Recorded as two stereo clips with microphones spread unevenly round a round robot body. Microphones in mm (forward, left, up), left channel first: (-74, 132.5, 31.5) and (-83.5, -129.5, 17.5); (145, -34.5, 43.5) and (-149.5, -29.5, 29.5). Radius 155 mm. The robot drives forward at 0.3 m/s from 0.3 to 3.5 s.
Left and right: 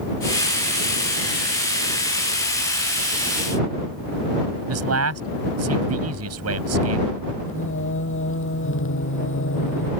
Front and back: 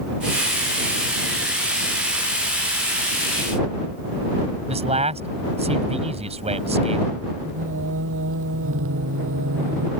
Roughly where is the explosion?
No explosion in this recording.